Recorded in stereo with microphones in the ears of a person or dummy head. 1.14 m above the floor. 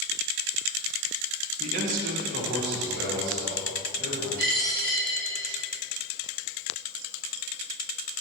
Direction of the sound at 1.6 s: 35° right (ahead or behind).